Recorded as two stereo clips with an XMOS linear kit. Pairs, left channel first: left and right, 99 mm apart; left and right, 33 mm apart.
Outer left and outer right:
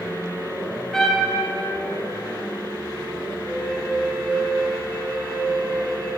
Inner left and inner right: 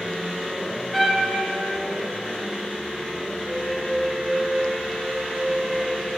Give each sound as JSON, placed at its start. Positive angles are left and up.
{"t": 0.9, "sound": "a trumpet", "side_deg": 5, "distance_m": 0.9}
{"t": 3.5, "sound": "a flute", "side_deg": 10, "distance_m": 1.2}